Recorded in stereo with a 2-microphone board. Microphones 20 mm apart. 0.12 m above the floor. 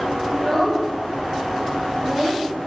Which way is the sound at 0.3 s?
30° left (ahead or behind).